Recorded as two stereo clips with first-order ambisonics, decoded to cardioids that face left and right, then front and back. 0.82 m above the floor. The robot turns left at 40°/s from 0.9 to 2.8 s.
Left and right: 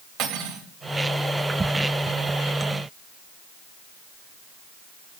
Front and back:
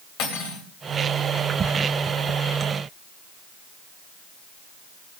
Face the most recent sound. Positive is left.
turn(degrees=-115)